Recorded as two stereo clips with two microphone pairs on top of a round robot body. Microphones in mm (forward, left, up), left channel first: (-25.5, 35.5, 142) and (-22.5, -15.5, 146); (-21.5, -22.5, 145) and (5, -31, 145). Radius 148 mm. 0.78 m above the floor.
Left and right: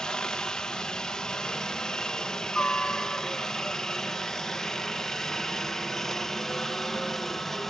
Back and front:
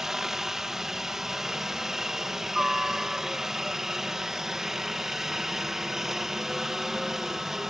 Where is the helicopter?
45° left; by 7.7 s 35° left.